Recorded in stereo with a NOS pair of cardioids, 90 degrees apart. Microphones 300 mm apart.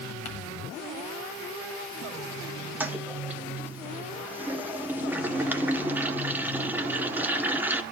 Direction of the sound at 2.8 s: 5° right.